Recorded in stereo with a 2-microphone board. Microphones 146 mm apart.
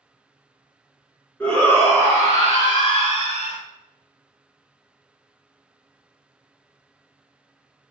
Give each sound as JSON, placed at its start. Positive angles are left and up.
{"t": 1.4, "sound": "a shout", "side_deg": 10, "distance_m": 1.7}